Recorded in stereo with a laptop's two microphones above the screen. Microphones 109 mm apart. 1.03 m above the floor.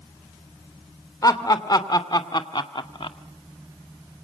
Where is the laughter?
35° left (ahead or behind), 3 m; by 3.2 s 55° left (ahead or behind), 1.7 m.